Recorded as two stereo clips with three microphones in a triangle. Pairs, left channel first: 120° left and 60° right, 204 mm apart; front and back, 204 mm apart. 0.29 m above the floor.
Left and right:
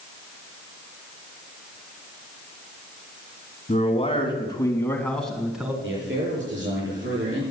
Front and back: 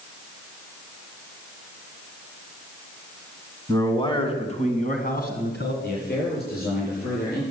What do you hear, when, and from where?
3.7 s a man speaking: 70° left, 3 m; by 5.7 s 25° left, 3 m
5.8 s a man speaking: 40° right, 8.5 m